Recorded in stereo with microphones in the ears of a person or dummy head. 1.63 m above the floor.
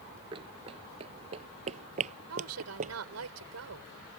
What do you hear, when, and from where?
0.3 s running footsteps: 15° right (ahead or behind); by 3.0 s 35° right (ahead or behind)
2.3 s a woman speaking: 85° right